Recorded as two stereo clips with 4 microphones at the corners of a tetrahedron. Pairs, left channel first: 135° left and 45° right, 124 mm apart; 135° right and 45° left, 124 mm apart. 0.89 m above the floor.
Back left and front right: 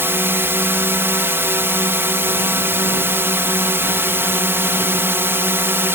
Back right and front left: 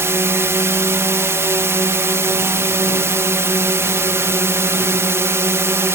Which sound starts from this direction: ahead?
A drone, at 0.0 s.